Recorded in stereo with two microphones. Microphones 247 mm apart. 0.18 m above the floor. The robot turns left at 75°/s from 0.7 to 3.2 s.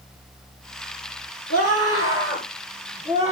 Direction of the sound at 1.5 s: 115° left.